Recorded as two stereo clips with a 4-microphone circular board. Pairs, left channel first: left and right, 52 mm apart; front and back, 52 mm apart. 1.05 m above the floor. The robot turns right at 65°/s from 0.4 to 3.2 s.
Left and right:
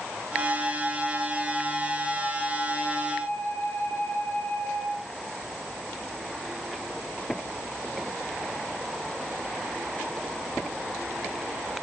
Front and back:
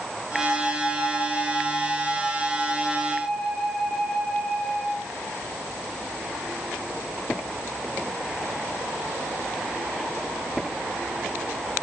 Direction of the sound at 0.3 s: 65° right.